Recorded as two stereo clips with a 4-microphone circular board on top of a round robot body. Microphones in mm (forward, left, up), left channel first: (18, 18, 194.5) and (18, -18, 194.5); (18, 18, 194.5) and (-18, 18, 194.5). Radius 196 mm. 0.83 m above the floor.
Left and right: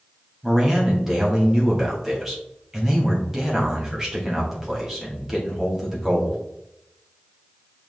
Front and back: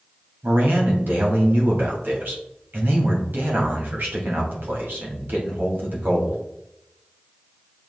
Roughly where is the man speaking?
Behind.